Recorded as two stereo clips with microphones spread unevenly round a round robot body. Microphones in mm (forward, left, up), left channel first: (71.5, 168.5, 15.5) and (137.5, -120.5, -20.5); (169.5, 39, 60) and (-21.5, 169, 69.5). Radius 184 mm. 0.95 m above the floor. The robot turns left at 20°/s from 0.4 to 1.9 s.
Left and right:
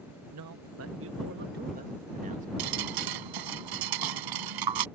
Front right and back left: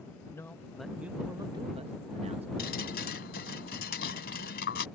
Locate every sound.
0.3 s a man speaking: 115° right; by 2.5 s 145° right
2.6 s dripping: 95° right